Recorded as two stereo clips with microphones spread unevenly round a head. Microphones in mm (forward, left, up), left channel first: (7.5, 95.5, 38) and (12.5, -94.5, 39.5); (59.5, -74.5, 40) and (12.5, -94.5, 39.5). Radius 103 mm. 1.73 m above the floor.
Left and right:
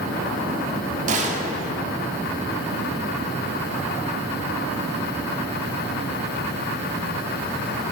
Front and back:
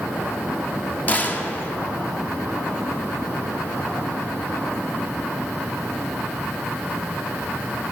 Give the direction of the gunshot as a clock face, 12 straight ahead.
1 o'clock.